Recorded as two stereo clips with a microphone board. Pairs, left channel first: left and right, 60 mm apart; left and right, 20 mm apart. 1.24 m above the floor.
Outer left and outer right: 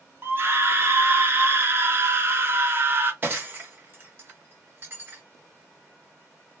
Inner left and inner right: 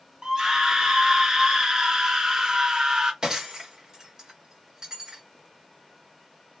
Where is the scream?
40° right (ahead or behind), 0.9 m.